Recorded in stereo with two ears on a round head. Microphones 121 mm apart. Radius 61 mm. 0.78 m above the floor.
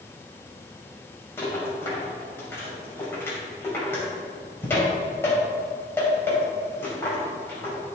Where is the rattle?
15° left (ahead or behind), 3 m.